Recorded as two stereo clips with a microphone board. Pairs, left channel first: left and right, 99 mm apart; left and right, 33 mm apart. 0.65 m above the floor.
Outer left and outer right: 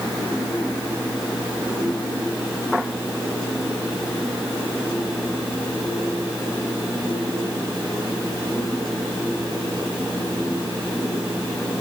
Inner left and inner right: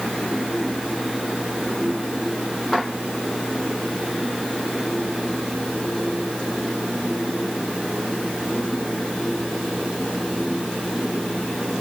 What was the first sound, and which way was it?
Only background noise.